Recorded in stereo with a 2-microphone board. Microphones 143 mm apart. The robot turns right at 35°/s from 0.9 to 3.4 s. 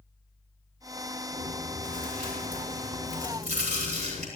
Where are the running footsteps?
I don't hear running footsteps.